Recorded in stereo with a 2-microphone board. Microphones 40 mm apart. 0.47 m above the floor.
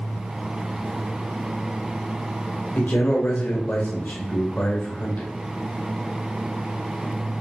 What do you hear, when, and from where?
2.8 s a man speaking: 50° left (ahead or behind), 1.3 m